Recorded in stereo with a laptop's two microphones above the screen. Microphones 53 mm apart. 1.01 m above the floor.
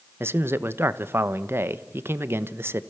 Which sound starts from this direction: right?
A man speaking, at 0.2 s.